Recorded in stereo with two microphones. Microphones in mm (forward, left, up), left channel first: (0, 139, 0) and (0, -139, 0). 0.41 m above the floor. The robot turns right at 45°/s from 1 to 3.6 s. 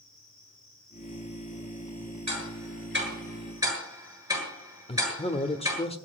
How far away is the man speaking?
About 1.2 m.